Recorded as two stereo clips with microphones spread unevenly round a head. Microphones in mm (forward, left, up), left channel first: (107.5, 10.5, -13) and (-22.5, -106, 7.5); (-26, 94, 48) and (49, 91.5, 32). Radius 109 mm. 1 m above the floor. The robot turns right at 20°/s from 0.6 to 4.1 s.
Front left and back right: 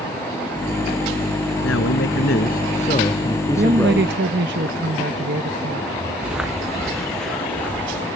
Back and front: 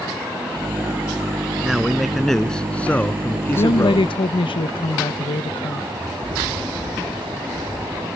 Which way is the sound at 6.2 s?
55° right.